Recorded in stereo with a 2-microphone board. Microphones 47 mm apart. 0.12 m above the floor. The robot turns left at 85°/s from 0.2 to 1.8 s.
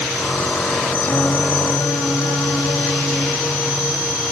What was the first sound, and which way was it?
Singing, 155° left.